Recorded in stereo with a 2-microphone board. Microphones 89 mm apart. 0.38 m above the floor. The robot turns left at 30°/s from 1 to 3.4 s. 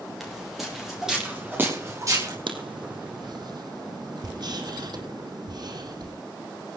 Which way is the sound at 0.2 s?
Centre (ahead or behind).